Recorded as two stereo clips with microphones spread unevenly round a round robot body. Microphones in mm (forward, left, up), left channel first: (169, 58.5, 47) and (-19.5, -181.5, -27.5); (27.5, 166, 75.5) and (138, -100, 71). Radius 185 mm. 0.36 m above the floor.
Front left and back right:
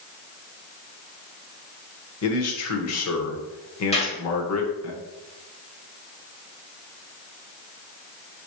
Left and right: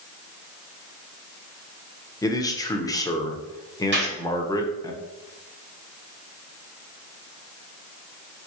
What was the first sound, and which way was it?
A man speaking, 40° left.